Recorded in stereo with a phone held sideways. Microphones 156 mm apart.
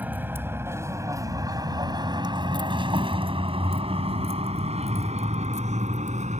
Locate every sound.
0.0 s a vehicle: 10° right (ahead or behind); by 6.4 s 50° right (ahead or behind)